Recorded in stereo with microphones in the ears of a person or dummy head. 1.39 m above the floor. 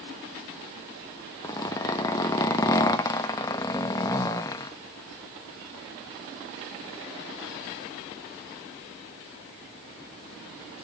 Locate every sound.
1.4 s a zipper: 15° left (ahead or behind), 0.9 m